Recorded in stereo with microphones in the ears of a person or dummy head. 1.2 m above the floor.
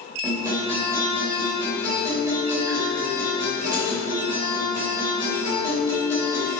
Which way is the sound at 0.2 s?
15° right (ahead or behind).